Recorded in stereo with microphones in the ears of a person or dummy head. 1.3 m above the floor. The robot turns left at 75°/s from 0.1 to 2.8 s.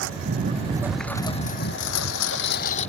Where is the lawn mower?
70° right (ahead or behind); by 2.9 s 35° left (ahead or behind).